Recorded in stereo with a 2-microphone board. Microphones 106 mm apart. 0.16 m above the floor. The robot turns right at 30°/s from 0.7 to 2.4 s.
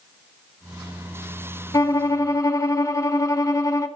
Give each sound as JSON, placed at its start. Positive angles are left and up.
{"t": 1.7, "sound": "a violin", "side_deg": 35, "distance_m": 0.8}